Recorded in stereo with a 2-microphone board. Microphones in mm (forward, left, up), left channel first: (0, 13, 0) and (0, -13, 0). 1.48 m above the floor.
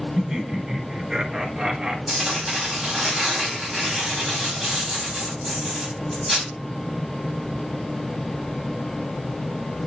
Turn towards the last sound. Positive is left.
turn(degrees=0)  # may be behind; listen again after turning